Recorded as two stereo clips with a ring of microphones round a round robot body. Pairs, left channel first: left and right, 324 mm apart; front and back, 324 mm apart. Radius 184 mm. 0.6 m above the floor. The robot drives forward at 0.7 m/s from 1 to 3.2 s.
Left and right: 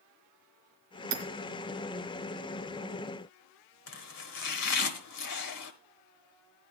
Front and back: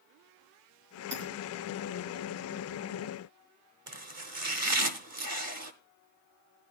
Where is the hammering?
100° right, 2.5 m.